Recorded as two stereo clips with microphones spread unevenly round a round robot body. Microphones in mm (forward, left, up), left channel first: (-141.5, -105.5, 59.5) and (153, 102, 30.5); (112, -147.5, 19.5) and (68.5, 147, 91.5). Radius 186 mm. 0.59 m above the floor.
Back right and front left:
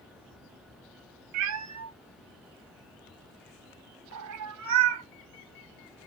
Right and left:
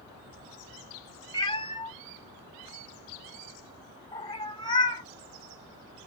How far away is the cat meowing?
About 0.7 m.